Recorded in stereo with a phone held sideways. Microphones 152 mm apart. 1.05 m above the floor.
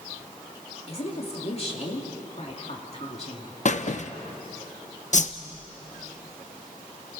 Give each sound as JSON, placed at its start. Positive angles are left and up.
{"t": 0.9, "sound": "a woman speaking", "side_deg": 45, "distance_m": 2.5}
{"t": 3.6, "sound": "a squeak", "side_deg": 55, "distance_m": 0.7}
{"t": 5.1, "sound": "a whoosh", "side_deg": 55, "distance_m": 0.8}